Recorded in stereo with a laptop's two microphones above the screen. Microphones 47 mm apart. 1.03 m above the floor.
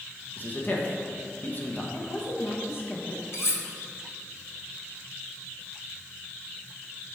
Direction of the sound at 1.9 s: 55° left (ahead or behind).